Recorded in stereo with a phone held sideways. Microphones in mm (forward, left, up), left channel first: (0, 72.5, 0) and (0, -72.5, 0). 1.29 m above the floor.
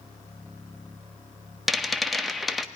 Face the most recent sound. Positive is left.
turn(degrees=0)  # may be behind; listen again after turning